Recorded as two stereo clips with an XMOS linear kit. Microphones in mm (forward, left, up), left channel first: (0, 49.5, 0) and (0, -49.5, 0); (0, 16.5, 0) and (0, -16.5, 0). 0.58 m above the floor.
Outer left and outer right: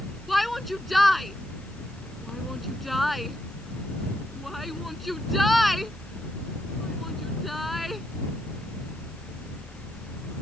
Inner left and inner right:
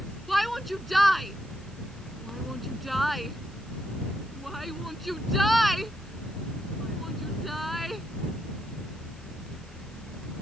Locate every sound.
0.3 s a shout: centre (ahead or behind)